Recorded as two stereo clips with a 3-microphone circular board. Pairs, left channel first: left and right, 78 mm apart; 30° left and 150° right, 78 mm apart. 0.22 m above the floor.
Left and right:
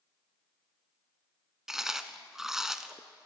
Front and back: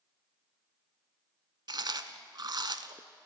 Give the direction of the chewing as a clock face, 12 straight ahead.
6 o'clock.